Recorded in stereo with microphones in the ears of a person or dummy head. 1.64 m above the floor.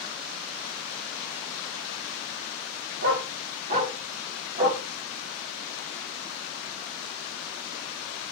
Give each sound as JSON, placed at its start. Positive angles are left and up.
{"t": 3.0, "sound": "a dog barking", "side_deg": -60, "distance_m": 1.9}